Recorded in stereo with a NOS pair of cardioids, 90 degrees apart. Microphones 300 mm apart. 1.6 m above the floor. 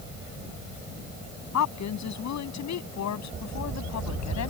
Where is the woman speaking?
65° left.